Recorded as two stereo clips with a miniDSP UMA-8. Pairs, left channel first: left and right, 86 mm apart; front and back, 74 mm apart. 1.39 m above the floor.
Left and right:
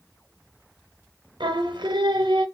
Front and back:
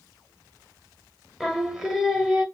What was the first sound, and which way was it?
Singing, 95° right.